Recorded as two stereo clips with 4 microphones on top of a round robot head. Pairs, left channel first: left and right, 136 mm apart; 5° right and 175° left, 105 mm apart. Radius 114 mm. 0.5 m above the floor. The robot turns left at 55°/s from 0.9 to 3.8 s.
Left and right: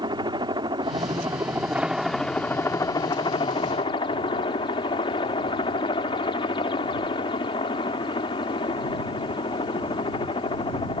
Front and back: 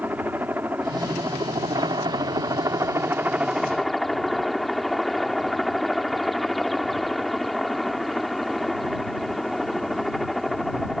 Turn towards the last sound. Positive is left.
turn(degrees=85)